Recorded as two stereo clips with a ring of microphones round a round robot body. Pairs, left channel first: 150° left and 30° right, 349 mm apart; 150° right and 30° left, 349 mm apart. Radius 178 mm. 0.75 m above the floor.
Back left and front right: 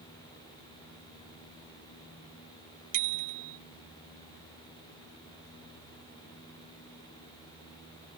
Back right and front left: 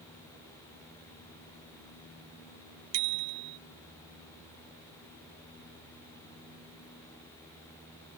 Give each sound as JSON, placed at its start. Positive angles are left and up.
{"t": 2.9, "sound": "a bicycle bell", "azimuth_deg": 15}